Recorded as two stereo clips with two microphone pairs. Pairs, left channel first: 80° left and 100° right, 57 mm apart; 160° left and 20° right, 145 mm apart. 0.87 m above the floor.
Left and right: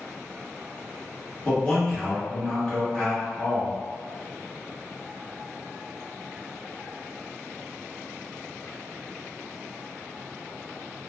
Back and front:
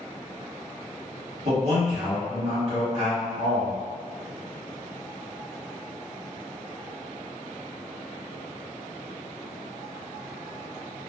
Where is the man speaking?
5° left, 1.4 m.